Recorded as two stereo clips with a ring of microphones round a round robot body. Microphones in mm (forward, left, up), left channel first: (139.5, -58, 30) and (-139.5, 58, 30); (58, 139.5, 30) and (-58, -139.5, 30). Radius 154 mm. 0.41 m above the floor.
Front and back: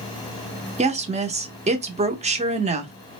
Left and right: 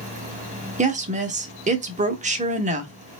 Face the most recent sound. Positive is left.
turn(degrees=-155)